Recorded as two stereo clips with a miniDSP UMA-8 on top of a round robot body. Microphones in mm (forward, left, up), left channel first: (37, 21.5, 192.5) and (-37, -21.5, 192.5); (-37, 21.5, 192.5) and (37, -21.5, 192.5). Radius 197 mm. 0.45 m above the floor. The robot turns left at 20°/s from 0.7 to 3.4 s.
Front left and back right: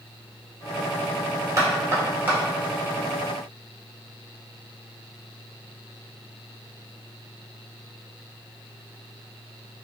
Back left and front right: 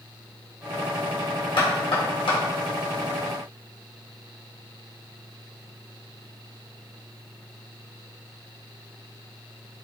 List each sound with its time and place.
1.6 s knocking: 155° left, 1.4 m; by 2.4 s 140° left, 1.4 m